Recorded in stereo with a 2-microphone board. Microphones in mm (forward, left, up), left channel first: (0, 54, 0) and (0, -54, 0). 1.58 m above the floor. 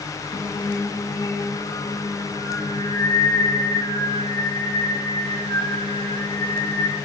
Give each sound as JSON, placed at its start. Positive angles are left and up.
{"t": 0.3, "sound": "singing", "side_deg": 45, "distance_m": 1.5}